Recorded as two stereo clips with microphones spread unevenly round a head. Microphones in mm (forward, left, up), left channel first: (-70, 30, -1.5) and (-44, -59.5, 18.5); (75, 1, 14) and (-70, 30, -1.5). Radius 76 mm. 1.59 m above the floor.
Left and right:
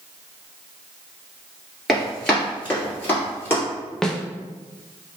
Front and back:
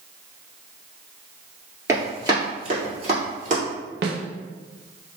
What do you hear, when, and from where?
1.9 s running footsteps: 135° right, 1.6 m; by 3.6 s 175° left, 2 m
4.0 s a snare drum: 175° right, 0.6 m